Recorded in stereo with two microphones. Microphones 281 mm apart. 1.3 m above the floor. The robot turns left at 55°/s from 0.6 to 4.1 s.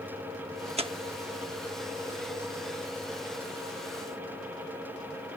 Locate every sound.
0.8 s tearing paper: 20° right (ahead or behind); by 0.9 s 15° right (ahead or behind)